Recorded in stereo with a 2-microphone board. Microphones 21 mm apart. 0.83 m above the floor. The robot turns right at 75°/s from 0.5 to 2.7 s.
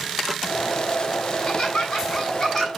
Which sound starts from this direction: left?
Laughter, at 1.3 s.